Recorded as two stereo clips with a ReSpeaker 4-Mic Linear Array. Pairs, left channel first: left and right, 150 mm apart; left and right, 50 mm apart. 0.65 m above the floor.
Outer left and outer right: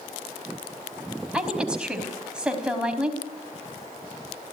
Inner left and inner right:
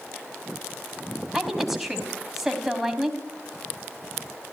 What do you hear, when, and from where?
1.3 s a woman speaking: 5° right (ahead or behind), 4 m